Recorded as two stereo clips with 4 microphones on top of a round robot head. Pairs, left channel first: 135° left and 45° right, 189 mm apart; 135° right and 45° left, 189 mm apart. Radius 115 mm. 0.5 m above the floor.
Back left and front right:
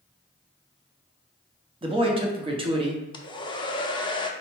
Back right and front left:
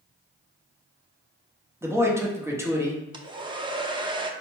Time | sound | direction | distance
1.8 | a man speaking | 20° right | 0.9 m
3.1 | a hair dryer | 90° left | 0.6 m